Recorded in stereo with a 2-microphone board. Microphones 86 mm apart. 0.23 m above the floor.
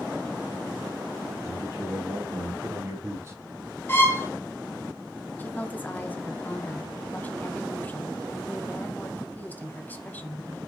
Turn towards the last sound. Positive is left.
turn(degrees=20)  # may be behind; listen again after turning